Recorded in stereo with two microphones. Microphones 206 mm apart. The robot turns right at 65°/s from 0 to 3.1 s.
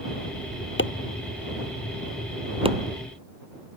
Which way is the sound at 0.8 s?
70° left (ahead or behind).